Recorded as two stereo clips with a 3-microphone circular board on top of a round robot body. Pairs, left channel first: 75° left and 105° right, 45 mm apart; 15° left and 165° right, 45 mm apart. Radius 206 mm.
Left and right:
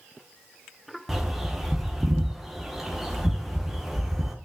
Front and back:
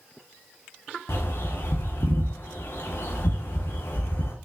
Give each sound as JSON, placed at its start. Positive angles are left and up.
{"t": 1.1, "sound": "a bird", "azimuth_deg": -20, "distance_m": 1.1}